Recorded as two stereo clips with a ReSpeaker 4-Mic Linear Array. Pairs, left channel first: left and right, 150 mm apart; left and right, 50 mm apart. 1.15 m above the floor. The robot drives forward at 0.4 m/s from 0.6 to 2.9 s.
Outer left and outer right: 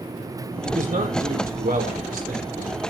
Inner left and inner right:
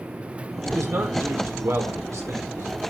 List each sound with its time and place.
0.6 s a man speaking: 65° right (ahead or behind), 4 m; by 2.9 s 75° right (ahead or behind), 4 m